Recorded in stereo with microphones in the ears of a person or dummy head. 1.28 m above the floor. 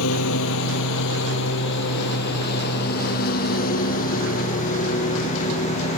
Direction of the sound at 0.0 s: 75° left (ahead or behind).